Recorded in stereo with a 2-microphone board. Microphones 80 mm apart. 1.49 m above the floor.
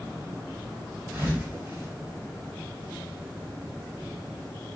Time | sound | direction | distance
1.1 | a thud | 40° right (ahead or behind) | 1.7 m